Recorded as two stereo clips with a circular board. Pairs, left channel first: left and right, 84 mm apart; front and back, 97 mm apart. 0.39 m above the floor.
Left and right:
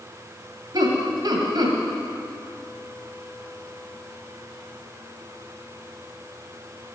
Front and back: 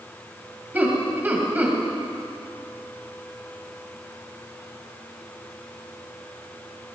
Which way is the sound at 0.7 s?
110° right.